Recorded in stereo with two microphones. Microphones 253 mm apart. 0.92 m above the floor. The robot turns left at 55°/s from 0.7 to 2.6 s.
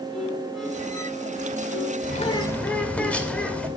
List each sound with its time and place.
0.1 s a violin: straight behind, 5 m; by 1.9 s 115° left, 5 m
2.0 s a bird: 35° left, 2 m; by 3.7 s 5° left, 2 m